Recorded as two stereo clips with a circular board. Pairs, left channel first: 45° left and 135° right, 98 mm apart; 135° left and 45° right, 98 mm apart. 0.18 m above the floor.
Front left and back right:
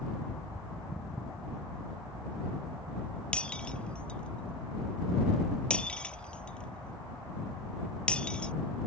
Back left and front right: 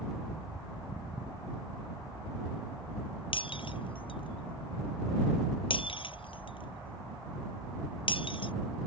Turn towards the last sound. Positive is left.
turn(degrees=125)